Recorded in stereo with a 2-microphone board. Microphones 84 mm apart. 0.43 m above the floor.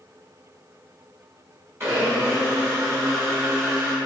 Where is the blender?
30° right (ahead or behind), 1.5 m.